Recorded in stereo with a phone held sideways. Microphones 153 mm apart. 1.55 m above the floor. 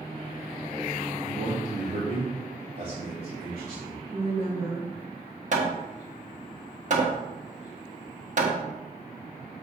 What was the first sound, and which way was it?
A man speaking, 65° right (ahead or behind).